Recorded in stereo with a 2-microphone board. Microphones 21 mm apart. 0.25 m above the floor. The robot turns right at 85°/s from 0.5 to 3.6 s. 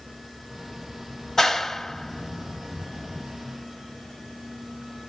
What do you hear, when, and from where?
1.4 s a clap: 20° left (ahead or behind), 0.8 m; by 3.3 s 20° right (ahead or behind), 0.8 m